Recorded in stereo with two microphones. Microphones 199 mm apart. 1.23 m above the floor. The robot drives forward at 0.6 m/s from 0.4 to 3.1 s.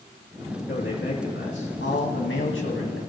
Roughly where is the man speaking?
Left.